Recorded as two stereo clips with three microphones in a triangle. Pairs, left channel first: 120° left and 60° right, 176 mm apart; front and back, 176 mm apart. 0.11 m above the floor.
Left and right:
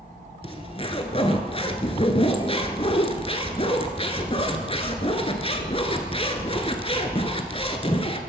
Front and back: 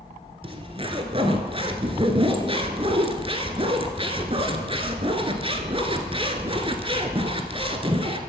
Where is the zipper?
150° left, 1.0 m.